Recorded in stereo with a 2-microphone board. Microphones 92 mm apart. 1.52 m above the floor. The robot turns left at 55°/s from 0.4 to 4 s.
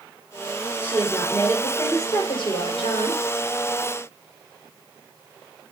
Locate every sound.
0.8 s a woman speaking: 160° right, 4.5 m; by 3.2 s 70° left, 4.5 m